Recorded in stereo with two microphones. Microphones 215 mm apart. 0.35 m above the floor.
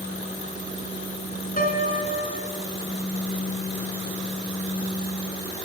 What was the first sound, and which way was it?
A piano, 40° left (ahead or behind).